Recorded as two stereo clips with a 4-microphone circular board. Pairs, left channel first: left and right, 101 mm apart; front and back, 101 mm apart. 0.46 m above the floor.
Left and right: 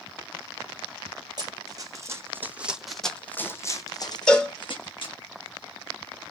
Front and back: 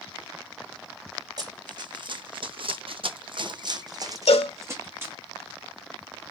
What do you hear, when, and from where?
1.4 s running footsteps: 135° right, 1.3 m; by 5.2 s 115° left, 1.5 m
4.3 s a cowbell: 5° left, 0.8 m